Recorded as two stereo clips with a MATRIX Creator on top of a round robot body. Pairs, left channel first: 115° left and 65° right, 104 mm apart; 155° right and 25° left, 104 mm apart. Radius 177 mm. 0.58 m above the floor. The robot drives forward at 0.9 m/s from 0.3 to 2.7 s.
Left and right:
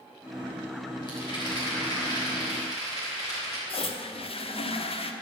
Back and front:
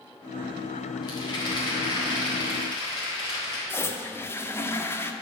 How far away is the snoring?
No snoring in this recording.